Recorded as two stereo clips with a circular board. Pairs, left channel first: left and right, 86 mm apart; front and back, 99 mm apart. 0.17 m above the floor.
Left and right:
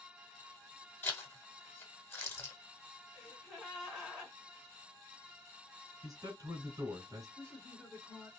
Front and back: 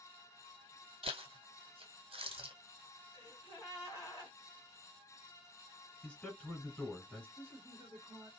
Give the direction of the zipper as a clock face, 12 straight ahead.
7 o'clock.